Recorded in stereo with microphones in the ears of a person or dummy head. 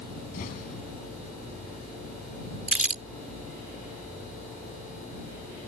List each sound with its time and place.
0.3 s an explosion: 45° left (ahead or behind)
2.7 s crumpling: 10° right (ahead or behind)